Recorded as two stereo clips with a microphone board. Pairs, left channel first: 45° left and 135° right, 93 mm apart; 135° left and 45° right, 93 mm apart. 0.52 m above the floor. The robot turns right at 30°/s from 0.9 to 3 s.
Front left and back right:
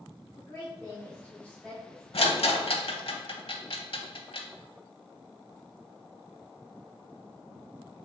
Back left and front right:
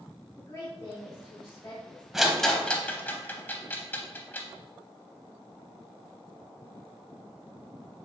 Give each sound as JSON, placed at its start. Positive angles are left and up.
{"t": 0.4, "sound": "a woman speaking", "azimuth_deg": 95, "distance_m": 1.0}
{"t": 2.1, "sound": "a rattle", "azimuth_deg": 40, "distance_m": 0.6}